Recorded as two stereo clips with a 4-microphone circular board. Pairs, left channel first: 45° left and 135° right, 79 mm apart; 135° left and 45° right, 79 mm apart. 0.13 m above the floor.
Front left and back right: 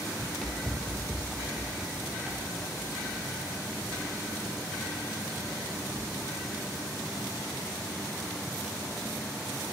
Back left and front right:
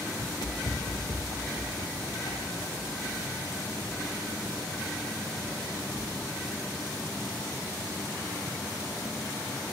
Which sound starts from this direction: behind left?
Running footsteps, at 0.2 s.